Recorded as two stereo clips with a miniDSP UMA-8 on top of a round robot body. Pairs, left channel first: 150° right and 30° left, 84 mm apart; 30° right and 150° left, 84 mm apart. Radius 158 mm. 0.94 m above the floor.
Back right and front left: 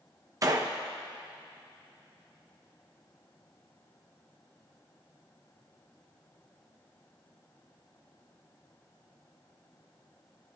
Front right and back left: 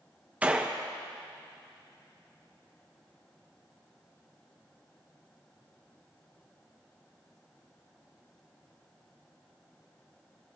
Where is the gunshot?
75° left, 1.0 m.